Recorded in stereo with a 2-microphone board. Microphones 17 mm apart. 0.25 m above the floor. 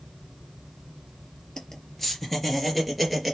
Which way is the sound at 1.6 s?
25° left (ahead or behind).